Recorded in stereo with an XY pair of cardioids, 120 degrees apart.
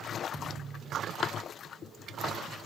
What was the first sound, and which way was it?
A thud, 25° right.